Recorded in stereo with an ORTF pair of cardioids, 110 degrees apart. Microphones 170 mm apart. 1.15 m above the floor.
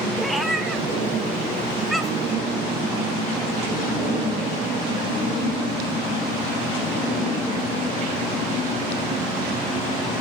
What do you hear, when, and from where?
0.2 s a cat meowing: straight ahead, 1.9 m